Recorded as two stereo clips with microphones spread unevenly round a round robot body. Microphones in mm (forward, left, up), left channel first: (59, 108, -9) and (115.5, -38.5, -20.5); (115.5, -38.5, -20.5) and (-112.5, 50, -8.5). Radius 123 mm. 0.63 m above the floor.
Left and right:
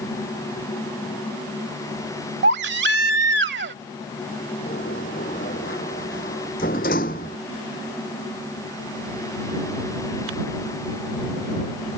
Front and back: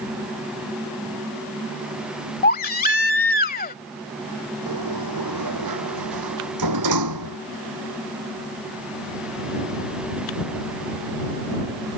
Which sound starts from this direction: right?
A baby crying, at 2.4 s.